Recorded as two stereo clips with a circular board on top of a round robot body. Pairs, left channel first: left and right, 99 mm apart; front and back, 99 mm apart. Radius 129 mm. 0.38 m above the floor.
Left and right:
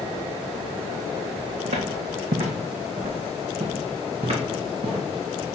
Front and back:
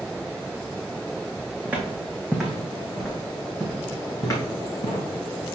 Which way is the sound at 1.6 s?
105° right.